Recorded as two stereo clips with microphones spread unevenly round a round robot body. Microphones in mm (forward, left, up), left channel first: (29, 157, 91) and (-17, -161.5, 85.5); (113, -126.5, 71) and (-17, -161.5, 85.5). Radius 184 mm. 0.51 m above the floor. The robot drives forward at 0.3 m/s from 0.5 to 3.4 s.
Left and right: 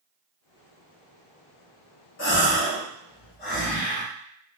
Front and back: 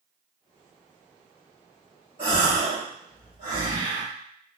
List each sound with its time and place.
2.2 s a gasp: 135° left, 1.4 m; by 4.0 s 145° left, 1.7 m